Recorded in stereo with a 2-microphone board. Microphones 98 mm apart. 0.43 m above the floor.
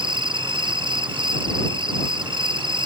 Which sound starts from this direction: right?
An insect, at 0.0 s.